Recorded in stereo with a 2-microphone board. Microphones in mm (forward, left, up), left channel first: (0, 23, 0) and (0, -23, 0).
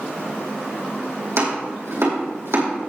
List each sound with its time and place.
1.4 s chopping: 70° right (ahead or behind), 4.5 m